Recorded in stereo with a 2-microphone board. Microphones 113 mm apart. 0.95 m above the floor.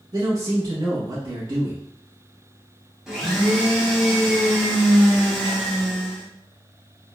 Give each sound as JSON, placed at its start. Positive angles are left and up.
{"t": 0.1, "sound": "a man speaking", "side_deg": -50, "distance_m": 1.4}
{"t": 3.1, "sound": "a blender", "side_deg": -5, "distance_m": 1.1}